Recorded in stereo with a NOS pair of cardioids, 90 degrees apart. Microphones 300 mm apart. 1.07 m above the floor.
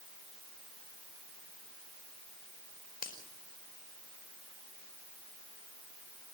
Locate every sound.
3.0 s a finger snap: 30° left, 5 m